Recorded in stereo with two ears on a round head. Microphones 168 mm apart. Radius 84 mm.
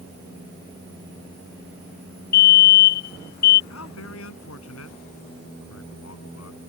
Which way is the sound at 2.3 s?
45° left (ahead or behind).